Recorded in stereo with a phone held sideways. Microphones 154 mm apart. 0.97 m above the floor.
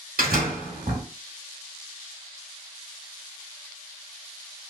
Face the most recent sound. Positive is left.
turn(degrees=-70)  # may be behind; listen again after turning